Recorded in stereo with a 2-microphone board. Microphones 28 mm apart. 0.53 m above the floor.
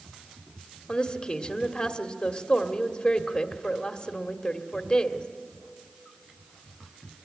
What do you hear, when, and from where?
0.9 s a woman speaking: 30° left (ahead or behind), 1.5 m